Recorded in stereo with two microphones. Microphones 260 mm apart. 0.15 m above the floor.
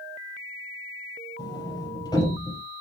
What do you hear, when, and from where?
1.4 s a sliding door: 15° left (ahead or behind), 4 m